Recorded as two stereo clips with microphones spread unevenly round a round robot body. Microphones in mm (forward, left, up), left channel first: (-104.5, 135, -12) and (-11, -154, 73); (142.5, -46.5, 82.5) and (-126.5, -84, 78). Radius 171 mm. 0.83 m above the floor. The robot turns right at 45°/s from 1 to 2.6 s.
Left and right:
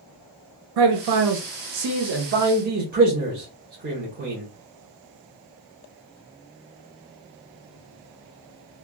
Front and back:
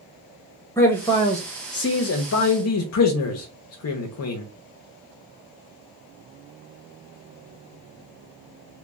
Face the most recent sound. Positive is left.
turn(degrees=0)